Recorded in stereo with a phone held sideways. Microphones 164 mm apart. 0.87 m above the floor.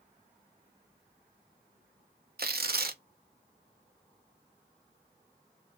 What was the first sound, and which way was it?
Tearing paper, 65° right (ahead or behind).